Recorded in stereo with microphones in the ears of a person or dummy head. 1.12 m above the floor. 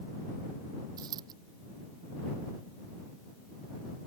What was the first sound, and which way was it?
A dropped coin, 20° right (ahead or behind).